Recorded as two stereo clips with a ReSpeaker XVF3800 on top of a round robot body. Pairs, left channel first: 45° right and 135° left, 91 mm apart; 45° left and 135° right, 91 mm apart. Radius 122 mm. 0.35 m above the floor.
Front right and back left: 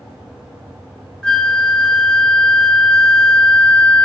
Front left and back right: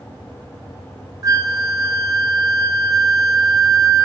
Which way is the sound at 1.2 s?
120° right.